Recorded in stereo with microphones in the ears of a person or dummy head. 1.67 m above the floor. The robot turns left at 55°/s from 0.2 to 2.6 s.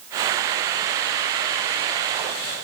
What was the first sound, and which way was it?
Only background noise.